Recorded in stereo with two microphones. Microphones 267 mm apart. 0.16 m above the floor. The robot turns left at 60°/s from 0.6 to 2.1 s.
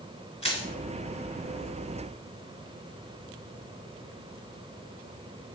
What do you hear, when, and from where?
0.4 s crushing: 25° left (ahead or behind), 1.4 m